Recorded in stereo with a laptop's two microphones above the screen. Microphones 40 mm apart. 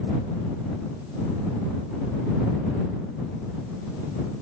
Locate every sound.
Only background noise.